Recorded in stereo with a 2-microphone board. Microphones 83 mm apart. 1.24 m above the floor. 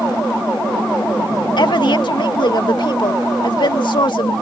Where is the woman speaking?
65° left (ahead or behind).